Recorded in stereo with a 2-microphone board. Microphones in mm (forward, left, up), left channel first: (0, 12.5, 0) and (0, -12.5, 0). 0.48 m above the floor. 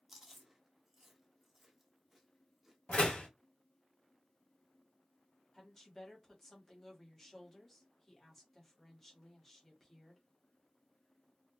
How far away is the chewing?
About 0.8 m.